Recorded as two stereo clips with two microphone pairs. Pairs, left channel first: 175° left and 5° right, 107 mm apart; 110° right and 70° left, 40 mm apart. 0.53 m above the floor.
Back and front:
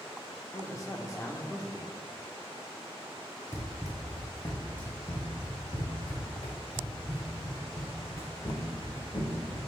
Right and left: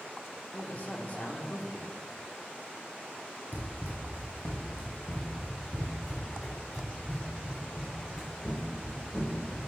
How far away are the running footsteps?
About 1.3 m.